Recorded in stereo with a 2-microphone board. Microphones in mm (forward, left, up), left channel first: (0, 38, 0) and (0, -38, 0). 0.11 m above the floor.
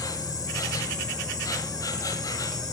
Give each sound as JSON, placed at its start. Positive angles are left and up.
{"t": 0.0, "sound": "an insect", "side_deg": 50, "distance_m": 1.1}